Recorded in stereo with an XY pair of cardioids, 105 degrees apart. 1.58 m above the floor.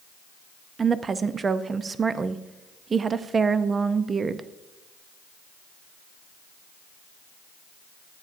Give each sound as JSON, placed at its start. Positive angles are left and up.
{"t": 0.8, "sound": "a woman speaking", "azimuth_deg": -35, "distance_m": 0.5}